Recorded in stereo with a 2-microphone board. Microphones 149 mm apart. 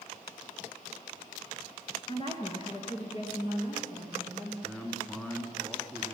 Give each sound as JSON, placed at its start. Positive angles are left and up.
{"t": 2.1, "sound": "a woman speaking", "side_deg": 35, "distance_m": 1.8}
{"t": 4.6, "sound": "a man speaking", "side_deg": 5, "distance_m": 1.7}